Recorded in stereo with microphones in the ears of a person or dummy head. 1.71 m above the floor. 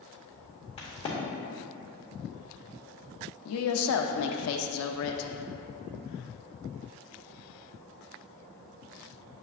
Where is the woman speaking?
75° left (ahead or behind), 0.5 m.